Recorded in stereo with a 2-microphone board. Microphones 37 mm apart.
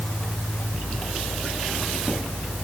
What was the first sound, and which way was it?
Only background noise.